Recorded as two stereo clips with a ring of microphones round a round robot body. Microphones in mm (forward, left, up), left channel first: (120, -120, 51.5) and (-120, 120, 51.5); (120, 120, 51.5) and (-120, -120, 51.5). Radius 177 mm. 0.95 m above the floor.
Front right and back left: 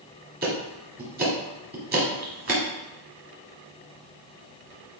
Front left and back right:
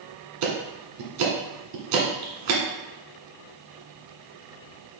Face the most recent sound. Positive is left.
turn(degrees=-160)